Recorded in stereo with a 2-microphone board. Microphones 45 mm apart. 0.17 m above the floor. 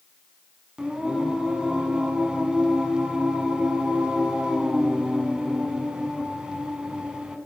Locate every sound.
0.8 s singing: 20° right (ahead or behind), 1.4 m